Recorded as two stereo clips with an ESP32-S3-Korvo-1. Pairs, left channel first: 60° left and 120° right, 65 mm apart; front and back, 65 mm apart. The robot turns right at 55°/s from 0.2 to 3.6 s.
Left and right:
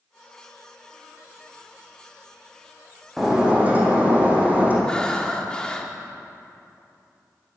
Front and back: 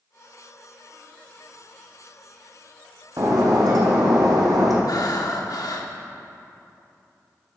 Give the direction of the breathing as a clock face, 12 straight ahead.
1 o'clock.